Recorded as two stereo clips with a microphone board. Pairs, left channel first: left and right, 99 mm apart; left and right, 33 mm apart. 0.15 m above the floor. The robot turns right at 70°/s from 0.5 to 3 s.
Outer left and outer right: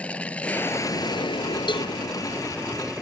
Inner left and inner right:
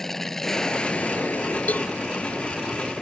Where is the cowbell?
50° left (ahead or behind); by 1.9 s 65° left (ahead or behind).